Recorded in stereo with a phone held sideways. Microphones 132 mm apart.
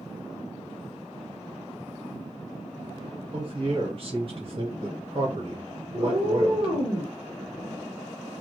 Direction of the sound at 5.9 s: 30° right (ahead or behind).